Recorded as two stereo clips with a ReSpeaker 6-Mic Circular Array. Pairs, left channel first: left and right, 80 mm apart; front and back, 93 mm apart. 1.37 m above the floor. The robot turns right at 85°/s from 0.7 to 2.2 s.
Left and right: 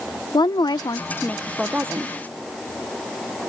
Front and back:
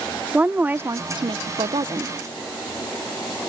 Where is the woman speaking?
110° left; by 2.1 s 130° right.